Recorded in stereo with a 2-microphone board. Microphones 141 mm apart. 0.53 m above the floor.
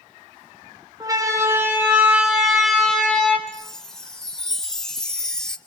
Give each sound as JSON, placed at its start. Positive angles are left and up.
{"t": 1.0, "sound": "a siren", "side_deg": -25, "distance_m": 3.0}
{"t": 3.5, "sound": "a chime", "side_deg": 5, "distance_m": 1.1}